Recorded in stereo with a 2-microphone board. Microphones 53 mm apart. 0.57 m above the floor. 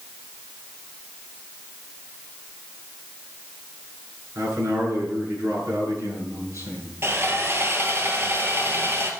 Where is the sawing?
50° right (ahead or behind), 2 m.